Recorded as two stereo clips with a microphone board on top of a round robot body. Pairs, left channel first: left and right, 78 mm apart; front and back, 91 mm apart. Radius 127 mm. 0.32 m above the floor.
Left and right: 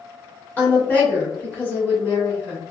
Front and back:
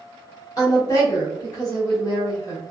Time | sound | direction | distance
0.6 | a woman speaking | 30° left | 1.5 m